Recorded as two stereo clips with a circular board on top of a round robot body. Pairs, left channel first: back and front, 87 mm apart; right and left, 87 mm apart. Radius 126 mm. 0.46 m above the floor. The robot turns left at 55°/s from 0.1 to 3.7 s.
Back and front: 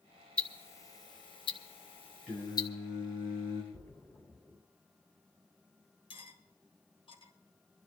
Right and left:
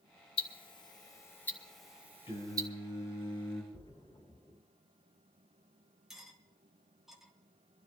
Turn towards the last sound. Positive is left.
turn(degrees=175)